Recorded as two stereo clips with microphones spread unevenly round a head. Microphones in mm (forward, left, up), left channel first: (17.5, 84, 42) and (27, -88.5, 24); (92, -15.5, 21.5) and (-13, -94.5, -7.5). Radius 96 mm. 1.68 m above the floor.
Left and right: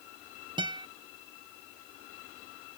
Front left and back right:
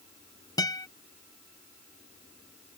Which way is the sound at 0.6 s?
20° right.